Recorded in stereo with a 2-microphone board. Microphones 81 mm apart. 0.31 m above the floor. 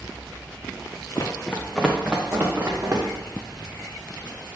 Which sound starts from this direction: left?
Running footsteps, at 1.1 s.